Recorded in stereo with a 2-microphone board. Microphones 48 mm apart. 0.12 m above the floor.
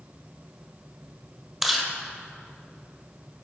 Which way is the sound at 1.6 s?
10° right (ahead or behind).